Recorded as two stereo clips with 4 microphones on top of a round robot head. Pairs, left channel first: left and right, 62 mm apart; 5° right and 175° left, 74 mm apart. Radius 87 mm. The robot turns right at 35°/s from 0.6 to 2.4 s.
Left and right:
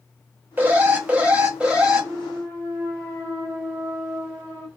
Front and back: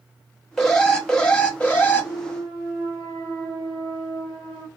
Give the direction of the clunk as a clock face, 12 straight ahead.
4 o'clock.